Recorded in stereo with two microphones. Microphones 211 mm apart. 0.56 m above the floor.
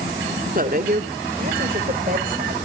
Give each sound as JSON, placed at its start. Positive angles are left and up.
{"t": 0.6, "sound": "a woman speaking", "side_deg": -40, "distance_m": 1.6}